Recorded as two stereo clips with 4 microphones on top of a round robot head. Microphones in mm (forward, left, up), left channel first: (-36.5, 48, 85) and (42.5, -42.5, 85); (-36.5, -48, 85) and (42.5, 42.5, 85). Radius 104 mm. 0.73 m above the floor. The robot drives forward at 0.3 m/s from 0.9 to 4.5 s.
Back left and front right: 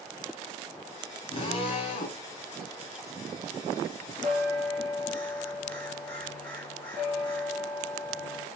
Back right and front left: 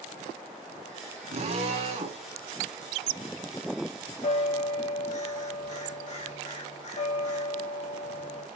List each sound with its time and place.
1.3 s a drill: 85° left, 3 m; by 2.2 s 90° left, 3 m
4.2 s a bell: 155° right, 3 m